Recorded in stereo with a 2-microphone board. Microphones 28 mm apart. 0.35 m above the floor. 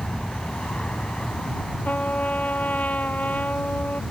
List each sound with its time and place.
0.0 s an aircraft: 40° left (ahead or behind); by 4.1 s 45° left (ahead or behind)
1.9 s a trumpet: 65° left (ahead or behind)